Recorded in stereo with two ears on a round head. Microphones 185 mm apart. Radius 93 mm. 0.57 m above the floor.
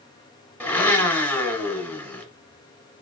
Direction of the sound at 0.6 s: 10° left (ahead or behind).